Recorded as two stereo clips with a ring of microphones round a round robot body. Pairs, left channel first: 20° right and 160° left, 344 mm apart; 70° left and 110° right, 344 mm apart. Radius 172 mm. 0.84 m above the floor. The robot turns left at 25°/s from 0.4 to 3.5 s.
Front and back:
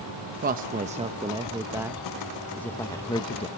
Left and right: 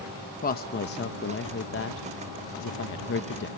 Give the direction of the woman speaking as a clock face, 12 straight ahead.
8 o'clock.